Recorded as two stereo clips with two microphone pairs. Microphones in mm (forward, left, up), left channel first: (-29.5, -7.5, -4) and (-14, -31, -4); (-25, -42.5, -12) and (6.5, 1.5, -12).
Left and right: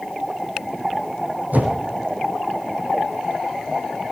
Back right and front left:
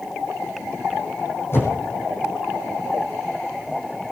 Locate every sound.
1.5 s a whoosh: 80° right, 7 m